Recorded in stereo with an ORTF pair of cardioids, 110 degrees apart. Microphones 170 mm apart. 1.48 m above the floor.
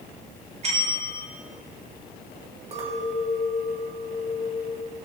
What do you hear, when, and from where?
0.6 s a bell: 40° right, 2.0 m
2.7 s a clink: 40° right, 2.5 m